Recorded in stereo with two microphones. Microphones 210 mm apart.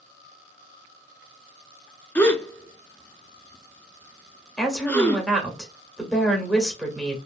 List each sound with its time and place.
2.1 s a gasp: 10° left (ahead or behind), 0.6 m
4.6 s a woman speaking: centre (ahead or behind), 1.2 m